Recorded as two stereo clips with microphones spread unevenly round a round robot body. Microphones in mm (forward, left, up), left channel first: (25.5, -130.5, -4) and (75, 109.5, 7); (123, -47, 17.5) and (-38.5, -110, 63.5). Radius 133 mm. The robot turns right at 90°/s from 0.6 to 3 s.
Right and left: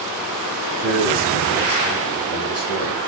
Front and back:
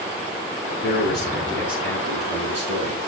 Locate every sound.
0.8 s a man speaking: 60° left, 5 m; by 3.1 s 100° right, 5 m